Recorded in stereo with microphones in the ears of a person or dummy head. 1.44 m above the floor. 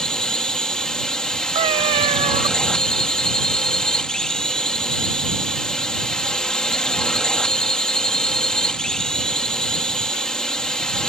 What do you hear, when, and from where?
0.0 s a drone: 5° left (ahead or behind)
1.6 s a cat meowing: 30° right (ahead or behind)